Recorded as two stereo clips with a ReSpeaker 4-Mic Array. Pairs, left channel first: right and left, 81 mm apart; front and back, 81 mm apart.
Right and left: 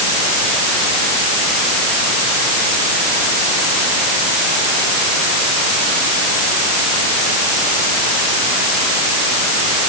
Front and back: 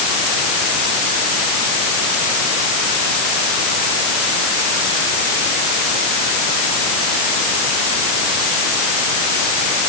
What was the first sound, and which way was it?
Only background noise.